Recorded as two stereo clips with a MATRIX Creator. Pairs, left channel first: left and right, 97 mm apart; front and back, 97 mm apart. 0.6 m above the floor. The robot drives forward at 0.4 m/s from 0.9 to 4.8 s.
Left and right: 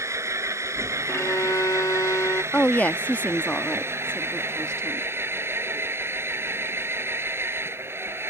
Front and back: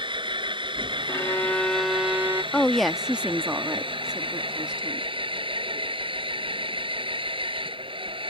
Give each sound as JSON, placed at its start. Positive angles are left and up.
{"t": 0.0, "sound": "an engine running", "azimuth_deg": -150}
{"t": 1.1, "sound": "a violin", "azimuth_deg": 40}
{"t": 2.5, "sound": "a woman speaking", "azimuth_deg": 55}